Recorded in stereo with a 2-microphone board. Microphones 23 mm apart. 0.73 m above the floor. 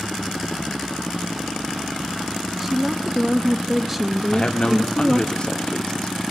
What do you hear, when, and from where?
2.6 s a woman speaking: 10° right (ahead or behind), 0.7 m
4.3 s a man speaking: 45° left (ahead or behind), 1.6 m